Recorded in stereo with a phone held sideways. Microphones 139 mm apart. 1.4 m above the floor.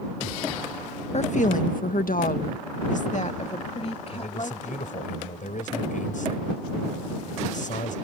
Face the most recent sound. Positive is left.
turn(degrees=70)  # may be behind; listen again after turning